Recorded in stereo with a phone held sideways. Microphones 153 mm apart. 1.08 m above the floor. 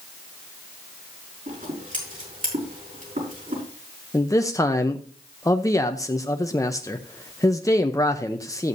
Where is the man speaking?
20° left (ahead or behind), 0.7 m.